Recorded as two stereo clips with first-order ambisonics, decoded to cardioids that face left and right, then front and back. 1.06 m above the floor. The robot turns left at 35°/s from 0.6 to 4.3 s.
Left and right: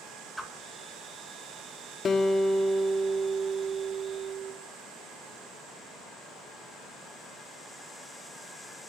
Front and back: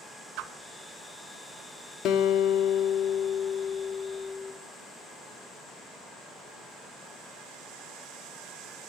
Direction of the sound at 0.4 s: 175° right.